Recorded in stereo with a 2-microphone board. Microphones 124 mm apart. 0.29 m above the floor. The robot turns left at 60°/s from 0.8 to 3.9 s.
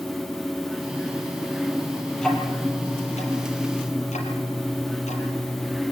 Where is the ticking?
5° left (ahead or behind), 5 m; by 5.8 s 75° left (ahead or behind), 5 m.